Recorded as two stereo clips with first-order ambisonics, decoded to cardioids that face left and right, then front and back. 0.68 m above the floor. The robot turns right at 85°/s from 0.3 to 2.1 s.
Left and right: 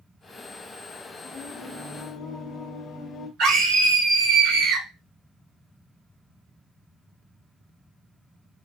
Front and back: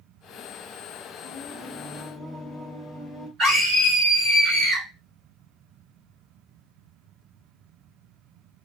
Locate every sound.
1.2 s singing: 5° left, 0.7 m; by 3.3 s 80° left, 0.7 m
3.4 s a scream: 110° right, 1.6 m